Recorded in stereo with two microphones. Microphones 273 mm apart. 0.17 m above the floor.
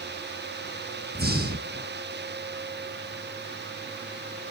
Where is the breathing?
35° right (ahead or behind), 1.4 m.